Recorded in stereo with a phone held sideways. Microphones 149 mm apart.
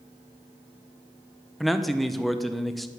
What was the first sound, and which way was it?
A man speaking, centre (ahead or behind).